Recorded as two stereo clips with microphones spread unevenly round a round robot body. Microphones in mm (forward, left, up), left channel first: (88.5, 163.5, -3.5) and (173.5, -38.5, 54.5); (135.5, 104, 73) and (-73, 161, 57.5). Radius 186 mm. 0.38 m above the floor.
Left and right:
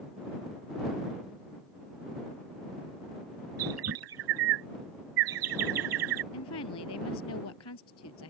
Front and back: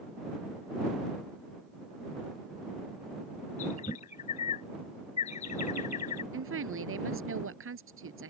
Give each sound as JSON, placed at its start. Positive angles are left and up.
{"t": 3.6, "sound": "a bird", "azimuth_deg": -85}
{"t": 6.3, "sound": "a woman speaking", "azimuth_deg": 145}